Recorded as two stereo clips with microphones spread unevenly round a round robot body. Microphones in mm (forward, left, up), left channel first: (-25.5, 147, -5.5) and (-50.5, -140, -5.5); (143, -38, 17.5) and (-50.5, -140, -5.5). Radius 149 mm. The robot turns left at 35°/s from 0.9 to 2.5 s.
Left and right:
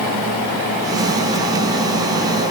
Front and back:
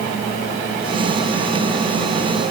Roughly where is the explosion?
I don't hear an explosion.